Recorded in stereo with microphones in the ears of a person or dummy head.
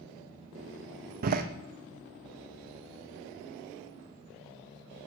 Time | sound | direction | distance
1.2 | a door slam | 50° right (ahead or behind) | 0.8 m